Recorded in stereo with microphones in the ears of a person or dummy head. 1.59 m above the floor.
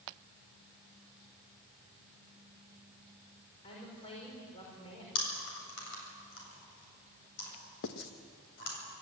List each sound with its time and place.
3.6 s a woman speaking: 35° left (ahead or behind), 5 m
5.2 s chewing: 75° left (ahead or behind), 7.5 m
7.8 s writing: 65° left (ahead or behind), 1.3 m